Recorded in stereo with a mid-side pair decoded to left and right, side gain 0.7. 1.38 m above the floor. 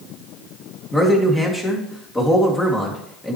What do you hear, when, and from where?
0.9 s a man speaking: 15° left, 2.5 m